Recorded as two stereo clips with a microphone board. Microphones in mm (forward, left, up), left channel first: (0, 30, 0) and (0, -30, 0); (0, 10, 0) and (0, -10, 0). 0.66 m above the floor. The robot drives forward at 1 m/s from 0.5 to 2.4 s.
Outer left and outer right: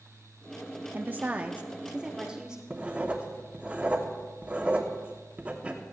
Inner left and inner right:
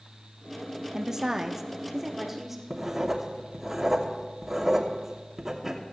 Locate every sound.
0.9 s a woman speaking: 30° right (ahead or behind), 0.7 m; by 2.6 s 10° right (ahead or behind), 1.7 m
2.7 s writing: 20° right (ahead or behind), 1.2 m